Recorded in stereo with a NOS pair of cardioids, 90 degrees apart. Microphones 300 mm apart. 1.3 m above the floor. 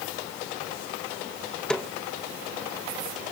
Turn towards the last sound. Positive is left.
turn(degrees=5)